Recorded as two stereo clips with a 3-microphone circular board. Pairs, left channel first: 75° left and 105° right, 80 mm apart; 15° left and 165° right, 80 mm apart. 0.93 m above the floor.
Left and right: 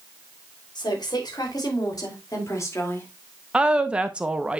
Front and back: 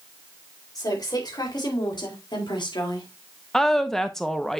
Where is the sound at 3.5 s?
55° right, 0.8 m.